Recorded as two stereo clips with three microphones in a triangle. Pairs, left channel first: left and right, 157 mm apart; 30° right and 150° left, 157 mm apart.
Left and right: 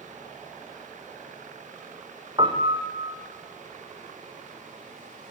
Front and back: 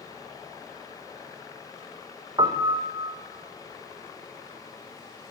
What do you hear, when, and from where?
2.4 s a piano: 150° right, 4.5 m